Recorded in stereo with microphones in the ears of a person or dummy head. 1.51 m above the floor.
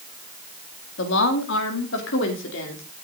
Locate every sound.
1.0 s a woman speaking: 70° left (ahead or behind), 2.5 m